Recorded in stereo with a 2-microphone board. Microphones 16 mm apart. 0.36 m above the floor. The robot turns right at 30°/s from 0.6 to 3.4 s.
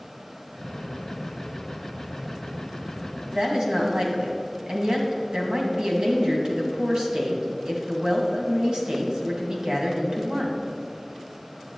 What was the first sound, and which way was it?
A woman speaking, 55° right (ahead or behind).